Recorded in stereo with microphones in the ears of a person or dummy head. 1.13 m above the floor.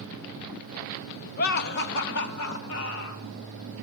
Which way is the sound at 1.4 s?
45° left (ahead or behind).